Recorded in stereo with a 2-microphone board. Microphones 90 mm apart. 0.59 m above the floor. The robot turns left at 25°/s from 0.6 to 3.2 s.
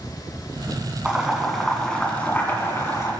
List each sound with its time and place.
1.1 s boiling: 10° right (ahead or behind), 2.5 m; by 3.1 s 40° left (ahead or behind), 2.5 m